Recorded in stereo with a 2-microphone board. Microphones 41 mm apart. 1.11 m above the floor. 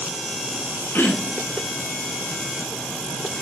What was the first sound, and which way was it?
Throat clearing, 65° left (ahead or behind).